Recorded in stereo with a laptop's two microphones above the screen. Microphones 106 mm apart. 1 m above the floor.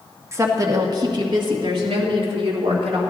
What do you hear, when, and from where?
0.3 s a woman speaking: 30° right (ahead or behind), 1.4 m; by 3.0 s 60° right (ahead or behind), 2.5 m